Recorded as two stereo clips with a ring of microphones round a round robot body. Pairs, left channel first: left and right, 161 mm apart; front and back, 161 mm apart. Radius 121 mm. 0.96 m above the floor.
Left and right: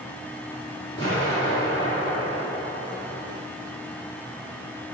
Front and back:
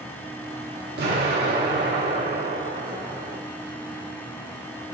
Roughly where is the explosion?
Behind.